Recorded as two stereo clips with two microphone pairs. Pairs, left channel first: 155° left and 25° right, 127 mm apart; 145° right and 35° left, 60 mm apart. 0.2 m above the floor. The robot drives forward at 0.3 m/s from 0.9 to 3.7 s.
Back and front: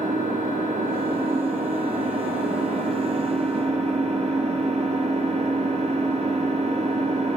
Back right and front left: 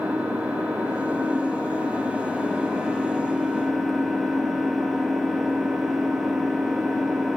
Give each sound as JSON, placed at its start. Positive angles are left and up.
{"t": 0.0, "sound": "an engine running", "azimuth_deg": -30, "distance_m": 1.9}